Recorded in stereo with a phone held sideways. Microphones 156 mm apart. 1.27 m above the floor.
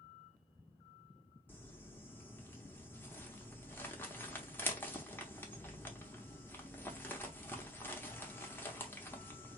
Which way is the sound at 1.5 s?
15° left (ahead or behind).